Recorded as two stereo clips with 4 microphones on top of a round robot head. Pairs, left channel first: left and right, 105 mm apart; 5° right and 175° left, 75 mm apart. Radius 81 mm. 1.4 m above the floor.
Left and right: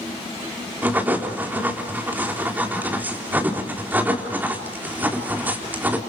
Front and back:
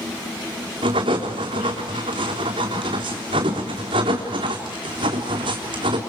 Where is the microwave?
No microwave in this recording.